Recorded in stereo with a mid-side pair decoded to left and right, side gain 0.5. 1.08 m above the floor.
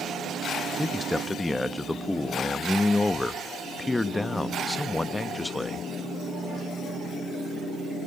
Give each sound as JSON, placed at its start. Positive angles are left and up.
{"t": 0.8, "sound": "a man speaking", "azimuth_deg": 15, "distance_m": 1.0}